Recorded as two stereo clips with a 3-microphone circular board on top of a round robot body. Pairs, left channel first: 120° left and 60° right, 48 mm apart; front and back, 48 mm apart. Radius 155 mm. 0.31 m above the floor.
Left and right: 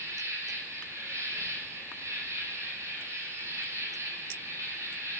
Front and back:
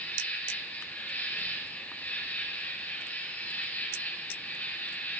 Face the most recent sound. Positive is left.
turn(degrees=-55)